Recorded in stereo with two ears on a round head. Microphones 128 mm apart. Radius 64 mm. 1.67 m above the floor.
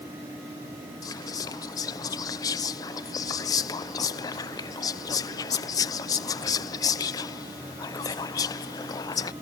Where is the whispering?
25° left (ahead or behind).